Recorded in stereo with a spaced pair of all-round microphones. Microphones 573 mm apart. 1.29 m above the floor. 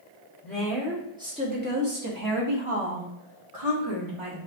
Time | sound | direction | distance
0.4 | a woman speaking | 5° left (ahead or behind) | 3 m